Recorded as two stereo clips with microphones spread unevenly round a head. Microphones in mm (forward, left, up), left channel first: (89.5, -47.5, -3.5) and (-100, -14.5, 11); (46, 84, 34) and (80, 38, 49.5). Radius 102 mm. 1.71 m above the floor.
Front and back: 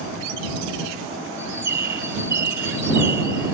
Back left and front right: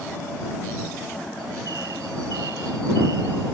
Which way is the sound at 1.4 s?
115° right.